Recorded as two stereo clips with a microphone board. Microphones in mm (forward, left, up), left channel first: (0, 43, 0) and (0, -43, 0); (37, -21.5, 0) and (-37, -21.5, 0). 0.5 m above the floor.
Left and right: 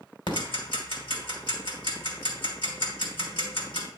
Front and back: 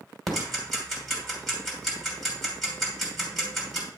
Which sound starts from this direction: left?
Ticking, at 0.3 s.